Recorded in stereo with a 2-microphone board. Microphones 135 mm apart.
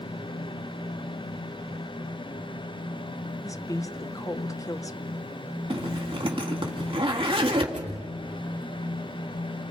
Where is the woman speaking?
25° left (ahead or behind), 1.1 m.